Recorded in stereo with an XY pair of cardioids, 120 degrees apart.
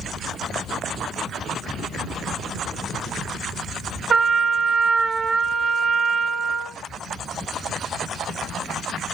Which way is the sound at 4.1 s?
35° right.